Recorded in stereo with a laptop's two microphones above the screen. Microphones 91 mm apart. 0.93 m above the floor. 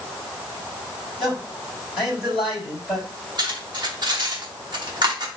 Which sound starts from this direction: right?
Cutlery clinking, at 3.4 s.